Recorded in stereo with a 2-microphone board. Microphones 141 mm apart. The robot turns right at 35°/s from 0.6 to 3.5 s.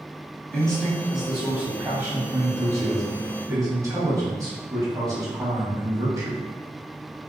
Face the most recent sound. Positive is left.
turn(degrees=-25)  # may be behind; listen again after turning